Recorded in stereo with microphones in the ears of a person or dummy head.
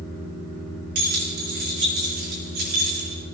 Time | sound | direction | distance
0.9 | keys jangling | 55° right (ahead or behind) | 2.5 m